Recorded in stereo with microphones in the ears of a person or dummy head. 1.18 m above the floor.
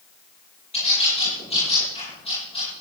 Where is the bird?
30° left (ahead or behind), 9 m.